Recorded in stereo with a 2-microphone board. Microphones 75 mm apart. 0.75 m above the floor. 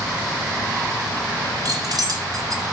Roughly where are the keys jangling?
Right.